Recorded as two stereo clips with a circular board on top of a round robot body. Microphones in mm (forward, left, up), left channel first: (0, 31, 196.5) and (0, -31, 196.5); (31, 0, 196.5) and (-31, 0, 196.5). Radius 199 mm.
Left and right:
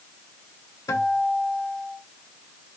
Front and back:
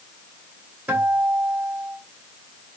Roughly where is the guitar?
Behind left.